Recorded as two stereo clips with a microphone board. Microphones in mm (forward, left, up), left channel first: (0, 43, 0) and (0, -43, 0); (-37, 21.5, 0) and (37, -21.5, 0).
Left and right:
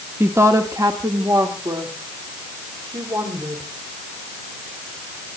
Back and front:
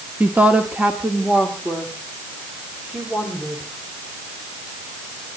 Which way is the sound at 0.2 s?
80° right.